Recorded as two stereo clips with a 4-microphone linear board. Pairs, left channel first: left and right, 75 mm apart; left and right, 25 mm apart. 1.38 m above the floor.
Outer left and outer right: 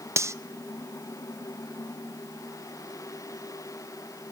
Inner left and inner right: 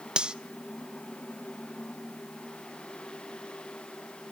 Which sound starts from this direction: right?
Cutlery clinking, at 0.2 s.